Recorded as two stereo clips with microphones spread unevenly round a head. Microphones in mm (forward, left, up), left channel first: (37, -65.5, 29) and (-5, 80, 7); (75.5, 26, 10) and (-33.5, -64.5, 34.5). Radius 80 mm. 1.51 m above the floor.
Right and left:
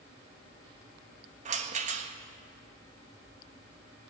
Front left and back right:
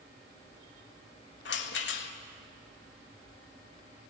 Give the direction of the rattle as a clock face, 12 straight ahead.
10 o'clock.